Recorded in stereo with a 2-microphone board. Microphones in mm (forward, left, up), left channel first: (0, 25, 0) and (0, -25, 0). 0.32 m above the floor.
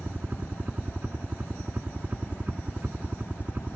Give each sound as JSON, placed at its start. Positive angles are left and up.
{"t": 0.0, "sound": "a helicopter", "side_deg": -35}